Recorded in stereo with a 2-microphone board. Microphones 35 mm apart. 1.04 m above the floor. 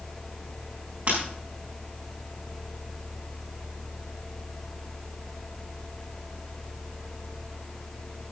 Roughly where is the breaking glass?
Right.